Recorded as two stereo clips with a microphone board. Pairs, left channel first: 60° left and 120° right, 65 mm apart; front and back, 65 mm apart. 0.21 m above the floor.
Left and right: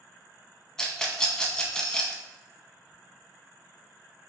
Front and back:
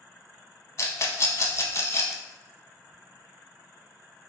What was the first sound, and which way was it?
A rattle, 15° right.